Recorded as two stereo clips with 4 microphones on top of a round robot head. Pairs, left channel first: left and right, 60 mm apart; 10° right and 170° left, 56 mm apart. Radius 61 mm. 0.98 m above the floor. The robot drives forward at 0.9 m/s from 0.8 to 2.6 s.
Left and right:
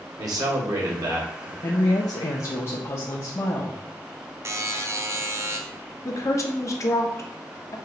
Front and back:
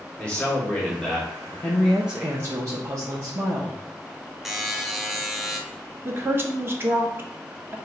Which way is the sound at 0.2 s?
85° right.